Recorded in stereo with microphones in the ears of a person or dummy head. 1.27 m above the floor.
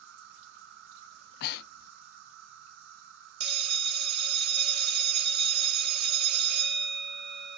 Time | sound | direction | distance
0.0 | an insect | 65° right (ahead or behind) | 2.5 m
1.1 | breathing | 60° left (ahead or behind) | 0.5 m
3.4 | a bell | 55° right (ahead or behind) | 1.2 m